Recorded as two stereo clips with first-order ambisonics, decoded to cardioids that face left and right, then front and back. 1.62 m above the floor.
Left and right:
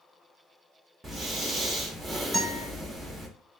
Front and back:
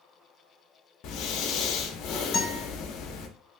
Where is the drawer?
I don't hear a drawer.